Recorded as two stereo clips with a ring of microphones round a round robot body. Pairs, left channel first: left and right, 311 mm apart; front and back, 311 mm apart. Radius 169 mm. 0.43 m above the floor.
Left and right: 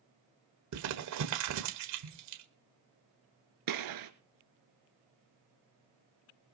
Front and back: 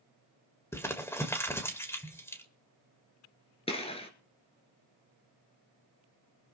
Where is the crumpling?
80° right, 1.7 m.